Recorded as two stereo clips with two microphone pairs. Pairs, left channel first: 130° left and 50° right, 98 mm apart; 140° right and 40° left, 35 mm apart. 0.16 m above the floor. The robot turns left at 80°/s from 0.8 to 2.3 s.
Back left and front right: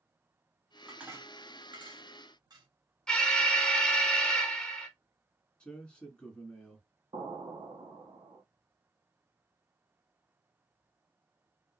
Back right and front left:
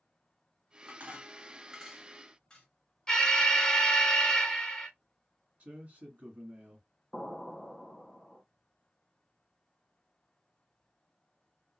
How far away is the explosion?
About 1.0 m.